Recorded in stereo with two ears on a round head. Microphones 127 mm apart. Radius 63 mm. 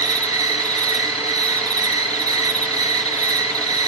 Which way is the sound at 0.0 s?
25° right (ahead or behind).